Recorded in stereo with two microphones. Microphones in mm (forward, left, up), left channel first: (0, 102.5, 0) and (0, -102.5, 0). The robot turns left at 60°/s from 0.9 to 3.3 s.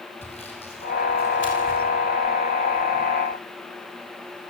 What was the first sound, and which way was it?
Sawing, 30° left (ahead or behind).